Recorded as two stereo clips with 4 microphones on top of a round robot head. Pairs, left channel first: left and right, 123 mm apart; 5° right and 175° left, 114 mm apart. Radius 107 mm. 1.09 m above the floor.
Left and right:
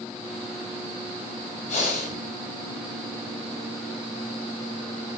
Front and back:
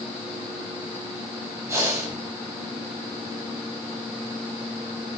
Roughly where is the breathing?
Left.